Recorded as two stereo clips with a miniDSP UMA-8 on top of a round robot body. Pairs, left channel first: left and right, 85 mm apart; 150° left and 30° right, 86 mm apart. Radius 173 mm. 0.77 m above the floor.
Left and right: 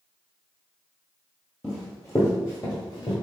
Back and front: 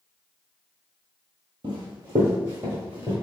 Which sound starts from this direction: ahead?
Running footsteps, at 1.6 s.